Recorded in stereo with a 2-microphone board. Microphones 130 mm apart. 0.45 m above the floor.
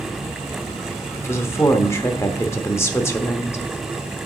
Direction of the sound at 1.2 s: 20° left (ahead or behind).